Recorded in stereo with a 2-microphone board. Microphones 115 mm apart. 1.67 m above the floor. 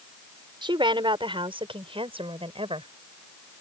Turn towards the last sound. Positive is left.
turn(degrees=-55)  # may be behind; listen again after turning